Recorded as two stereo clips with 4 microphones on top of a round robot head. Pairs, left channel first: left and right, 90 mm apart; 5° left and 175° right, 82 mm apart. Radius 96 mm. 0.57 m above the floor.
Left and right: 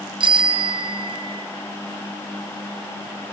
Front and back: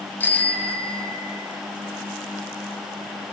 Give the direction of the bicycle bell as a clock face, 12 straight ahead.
2 o'clock.